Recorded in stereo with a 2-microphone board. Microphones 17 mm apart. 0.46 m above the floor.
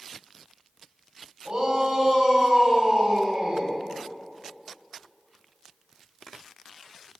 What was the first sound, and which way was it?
A shout, 65° right (ahead or behind).